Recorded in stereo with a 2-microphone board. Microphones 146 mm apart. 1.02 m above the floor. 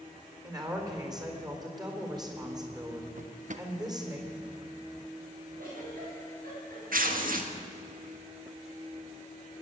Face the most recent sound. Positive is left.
turn(degrees=-75)  # may be behind; listen again after turning